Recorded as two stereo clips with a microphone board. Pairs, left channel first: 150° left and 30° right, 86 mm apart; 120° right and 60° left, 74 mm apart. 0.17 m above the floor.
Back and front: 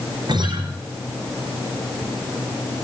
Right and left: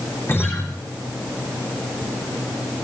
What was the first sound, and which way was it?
A guitar, 65° right.